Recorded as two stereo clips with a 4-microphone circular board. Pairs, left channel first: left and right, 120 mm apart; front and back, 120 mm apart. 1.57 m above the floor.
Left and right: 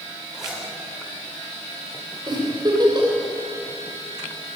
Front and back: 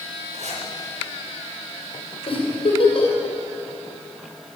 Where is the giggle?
35° right, 6.5 m.